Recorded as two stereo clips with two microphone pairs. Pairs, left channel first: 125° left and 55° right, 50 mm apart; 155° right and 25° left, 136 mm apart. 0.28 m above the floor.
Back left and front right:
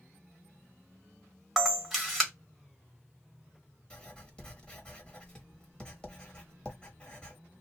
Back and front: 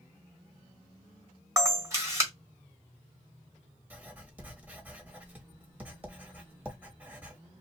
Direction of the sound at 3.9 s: 85° left.